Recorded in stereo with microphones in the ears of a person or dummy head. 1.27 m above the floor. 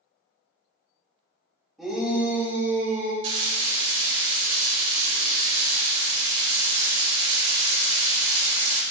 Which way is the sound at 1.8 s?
Centre (ahead or behind).